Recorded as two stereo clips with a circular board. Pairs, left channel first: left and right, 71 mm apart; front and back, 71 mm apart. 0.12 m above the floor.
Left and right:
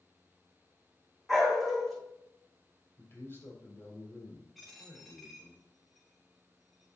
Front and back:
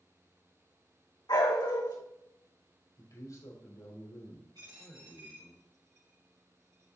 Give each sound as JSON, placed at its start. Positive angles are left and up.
{"t": 1.3, "sound": "a dog barking", "azimuth_deg": 5, "distance_m": 3.0}
{"t": 3.0, "sound": "a man speaking", "azimuth_deg": 40, "distance_m": 4.5}
{"t": 4.5, "sound": "a dropped coin", "azimuth_deg": 180, "distance_m": 4.0}